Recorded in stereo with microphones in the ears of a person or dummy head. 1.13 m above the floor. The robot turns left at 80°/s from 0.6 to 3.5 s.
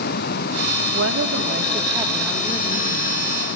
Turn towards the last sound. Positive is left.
turn(degrees=80)